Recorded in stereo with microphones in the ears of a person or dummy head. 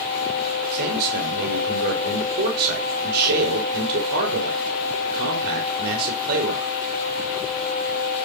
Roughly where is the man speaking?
Right.